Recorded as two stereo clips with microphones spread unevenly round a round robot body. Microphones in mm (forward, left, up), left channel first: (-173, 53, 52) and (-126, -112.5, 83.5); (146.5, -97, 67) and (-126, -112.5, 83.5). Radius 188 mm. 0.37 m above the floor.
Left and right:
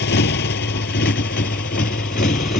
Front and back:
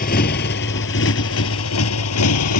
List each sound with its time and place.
0.0 s a motorcycle: 70° left; by 2.6 s 45° left